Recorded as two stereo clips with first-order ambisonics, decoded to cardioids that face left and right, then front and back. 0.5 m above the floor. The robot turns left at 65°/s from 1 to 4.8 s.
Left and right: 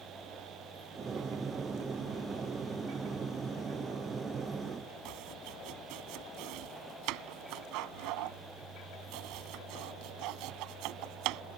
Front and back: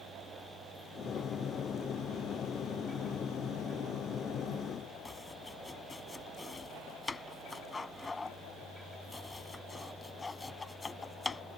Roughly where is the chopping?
Right.